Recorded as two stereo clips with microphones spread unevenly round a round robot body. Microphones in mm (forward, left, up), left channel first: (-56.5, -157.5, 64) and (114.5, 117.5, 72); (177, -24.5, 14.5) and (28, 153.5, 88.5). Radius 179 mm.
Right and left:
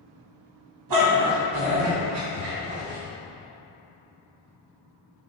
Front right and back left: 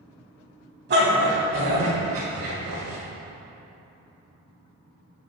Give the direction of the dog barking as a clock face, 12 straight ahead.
9 o'clock.